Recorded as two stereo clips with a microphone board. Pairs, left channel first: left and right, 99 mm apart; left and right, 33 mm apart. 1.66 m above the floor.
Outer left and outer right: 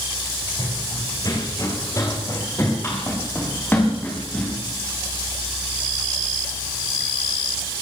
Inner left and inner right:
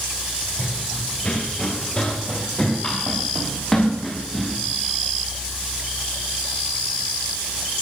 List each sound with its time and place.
0.6 s running footsteps: 40° left (ahead or behind), 5.5 m; by 4.6 s 15° left (ahead or behind), 9.5 m